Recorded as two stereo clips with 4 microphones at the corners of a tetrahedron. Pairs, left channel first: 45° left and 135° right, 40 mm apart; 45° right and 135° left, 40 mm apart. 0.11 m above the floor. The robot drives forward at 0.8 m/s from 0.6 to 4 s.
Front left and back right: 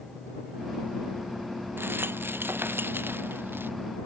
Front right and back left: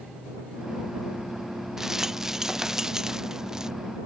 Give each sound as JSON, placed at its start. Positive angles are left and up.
{"t": 1.8, "sound": "a rattle", "azimuth_deg": -145}